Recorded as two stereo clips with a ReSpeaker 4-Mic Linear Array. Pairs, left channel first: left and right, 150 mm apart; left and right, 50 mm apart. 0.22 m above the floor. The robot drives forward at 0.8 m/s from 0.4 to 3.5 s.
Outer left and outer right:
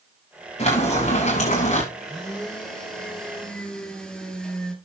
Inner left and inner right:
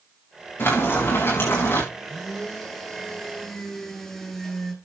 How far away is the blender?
About 5.5 m.